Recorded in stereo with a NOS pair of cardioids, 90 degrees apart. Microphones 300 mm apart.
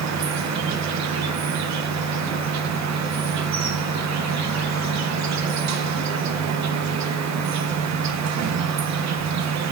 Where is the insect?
65° right, 1.0 m.